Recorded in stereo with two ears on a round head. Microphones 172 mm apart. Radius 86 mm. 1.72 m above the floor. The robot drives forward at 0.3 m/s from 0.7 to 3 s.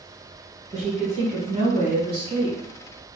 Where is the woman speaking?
35° right (ahead or behind), 1.2 m; by 2.6 s 25° right (ahead or behind), 1.6 m.